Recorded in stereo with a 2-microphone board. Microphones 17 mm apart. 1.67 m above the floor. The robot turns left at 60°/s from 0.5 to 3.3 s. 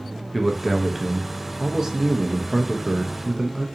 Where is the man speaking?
Straight ahead, 0.5 m; by 3.6 s 170° right, 0.5 m.